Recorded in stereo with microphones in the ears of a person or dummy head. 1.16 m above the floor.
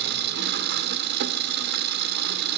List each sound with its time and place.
0.0 s an engine running: 60° right (ahead or behind), 1.3 m